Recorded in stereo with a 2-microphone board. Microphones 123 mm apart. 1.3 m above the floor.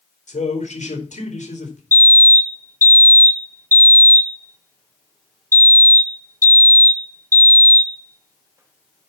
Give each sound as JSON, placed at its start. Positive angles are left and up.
{"t": 0.3, "sound": "a man speaking", "side_deg": 75, "distance_m": 4.5}
{"t": 1.9, "sound": "a fire alarm", "side_deg": -20, "distance_m": 1.7}